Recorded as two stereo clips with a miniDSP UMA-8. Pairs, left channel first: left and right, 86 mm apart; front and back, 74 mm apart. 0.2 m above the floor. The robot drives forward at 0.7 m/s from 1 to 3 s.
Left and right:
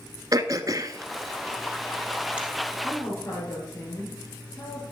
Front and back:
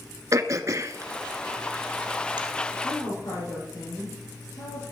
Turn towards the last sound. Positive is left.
turn(degrees=25)